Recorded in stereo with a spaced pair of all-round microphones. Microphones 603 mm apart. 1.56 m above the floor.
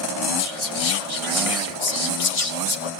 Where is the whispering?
65° left (ahead or behind), 1.5 m.